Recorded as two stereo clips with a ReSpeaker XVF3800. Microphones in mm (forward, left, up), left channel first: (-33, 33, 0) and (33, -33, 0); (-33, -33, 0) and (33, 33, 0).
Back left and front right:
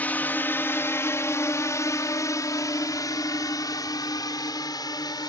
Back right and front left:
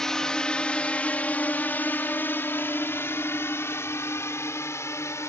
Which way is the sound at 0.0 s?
150° left.